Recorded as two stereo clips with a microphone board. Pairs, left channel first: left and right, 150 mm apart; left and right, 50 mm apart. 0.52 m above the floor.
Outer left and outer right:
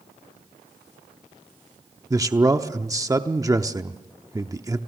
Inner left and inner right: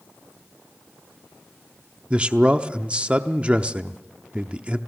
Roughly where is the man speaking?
Right.